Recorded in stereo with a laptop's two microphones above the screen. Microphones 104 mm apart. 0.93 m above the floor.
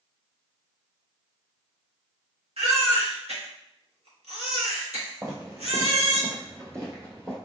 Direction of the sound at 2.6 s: 85° right.